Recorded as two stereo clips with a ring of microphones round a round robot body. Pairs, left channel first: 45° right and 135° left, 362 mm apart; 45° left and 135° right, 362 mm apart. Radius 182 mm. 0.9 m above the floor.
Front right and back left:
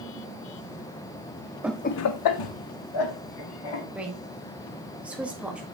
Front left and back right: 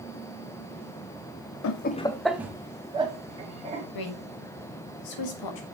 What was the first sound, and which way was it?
Laughter, 55° left.